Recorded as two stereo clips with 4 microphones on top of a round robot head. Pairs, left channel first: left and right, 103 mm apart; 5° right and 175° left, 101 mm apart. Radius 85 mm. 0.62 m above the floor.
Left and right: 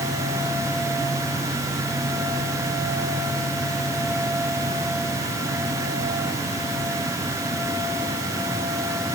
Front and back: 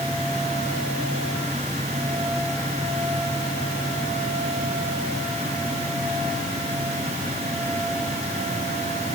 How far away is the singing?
I don't hear singing.